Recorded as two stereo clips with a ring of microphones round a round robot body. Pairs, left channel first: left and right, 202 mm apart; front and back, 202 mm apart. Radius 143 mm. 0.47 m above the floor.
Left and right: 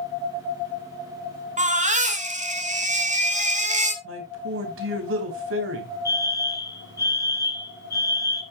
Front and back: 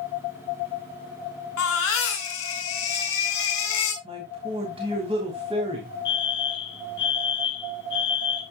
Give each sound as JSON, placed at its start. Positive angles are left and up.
{"t": 1.6, "sound": "a baby crying", "azimuth_deg": -35, "distance_m": 3.0}
{"t": 4.0, "sound": "a man speaking", "azimuth_deg": -110, "distance_m": 3.0}
{"t": 6.0, "sound": "a fire alarm", "azimuth_deg": 15, "distance_m": 4.5}